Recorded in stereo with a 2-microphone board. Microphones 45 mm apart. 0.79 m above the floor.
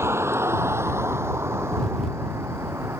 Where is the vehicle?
85° right; by 3.0 s 80° right.